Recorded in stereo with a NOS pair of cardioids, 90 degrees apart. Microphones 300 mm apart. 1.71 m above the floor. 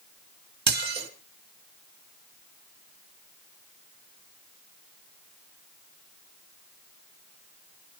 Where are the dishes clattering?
35° right, 2.5 m.